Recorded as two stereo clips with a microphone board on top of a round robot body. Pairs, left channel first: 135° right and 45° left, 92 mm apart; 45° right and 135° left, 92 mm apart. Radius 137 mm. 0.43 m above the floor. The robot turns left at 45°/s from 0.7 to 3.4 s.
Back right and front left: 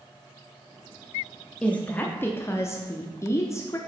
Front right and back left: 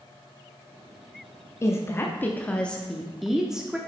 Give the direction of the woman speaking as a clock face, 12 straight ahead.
2 o'clock.